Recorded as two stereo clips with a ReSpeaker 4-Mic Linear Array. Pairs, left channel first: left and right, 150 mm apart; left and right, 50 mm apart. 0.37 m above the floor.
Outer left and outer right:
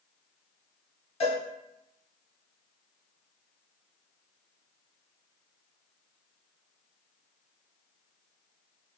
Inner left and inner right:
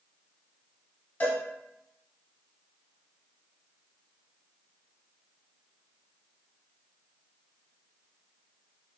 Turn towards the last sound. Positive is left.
turn(degrees=40)  # may be behind; listen again after turning